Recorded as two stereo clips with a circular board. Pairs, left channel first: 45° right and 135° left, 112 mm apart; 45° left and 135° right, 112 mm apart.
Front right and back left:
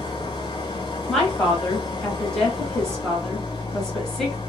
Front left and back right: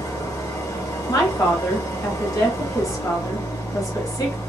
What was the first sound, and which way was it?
An engine running, 10° right.